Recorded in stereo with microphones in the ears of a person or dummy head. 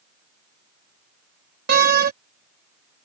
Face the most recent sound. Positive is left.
turn(degrees=-50)  # may be behind; listen again after turning